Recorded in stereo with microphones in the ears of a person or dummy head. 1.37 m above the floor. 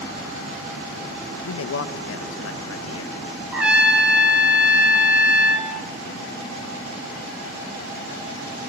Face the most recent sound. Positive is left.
turn(degrees=0)  # may be behind; listen again after turning